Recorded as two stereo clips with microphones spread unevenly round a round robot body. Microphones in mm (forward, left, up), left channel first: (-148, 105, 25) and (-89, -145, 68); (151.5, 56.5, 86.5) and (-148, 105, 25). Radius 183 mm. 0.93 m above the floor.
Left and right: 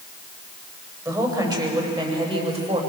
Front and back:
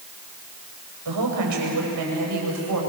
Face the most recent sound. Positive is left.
turn(degrees=-145)